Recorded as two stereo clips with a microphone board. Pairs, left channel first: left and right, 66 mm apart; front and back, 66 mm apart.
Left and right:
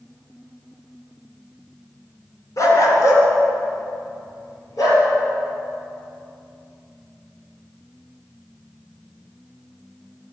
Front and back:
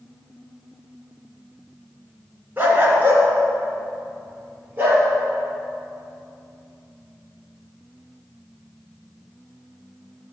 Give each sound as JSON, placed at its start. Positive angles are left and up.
{"t": 2.6, "sound": "a dog barking", "azimuth_deg": 120, "distance_m": 2.5}